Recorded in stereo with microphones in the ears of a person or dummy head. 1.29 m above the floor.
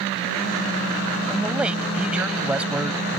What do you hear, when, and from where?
1.3 s a man speaking: 5° right (ahead or behind)